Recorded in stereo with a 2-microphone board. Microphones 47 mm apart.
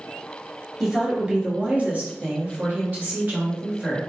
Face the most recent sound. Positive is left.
turn(degrees=-35)  # may be behind; listen again after turning